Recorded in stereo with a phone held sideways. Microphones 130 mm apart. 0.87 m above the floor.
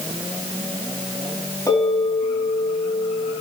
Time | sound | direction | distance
1.7 | a bell | 25° left (ahead or behind) | 6 m